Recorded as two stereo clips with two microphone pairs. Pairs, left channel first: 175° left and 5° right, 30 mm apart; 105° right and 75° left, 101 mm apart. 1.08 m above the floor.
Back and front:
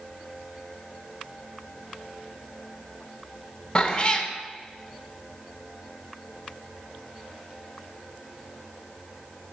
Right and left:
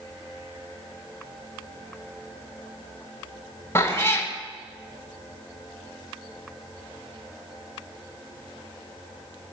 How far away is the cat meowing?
About 0.5 m.